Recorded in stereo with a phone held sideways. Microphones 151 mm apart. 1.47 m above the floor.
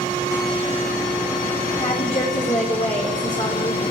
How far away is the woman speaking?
About 5 m.